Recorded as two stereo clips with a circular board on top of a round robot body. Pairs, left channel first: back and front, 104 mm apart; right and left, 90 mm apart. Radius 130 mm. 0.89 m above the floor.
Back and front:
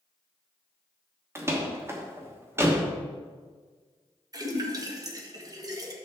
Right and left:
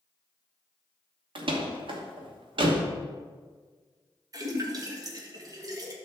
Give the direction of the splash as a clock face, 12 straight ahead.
10 o'clock.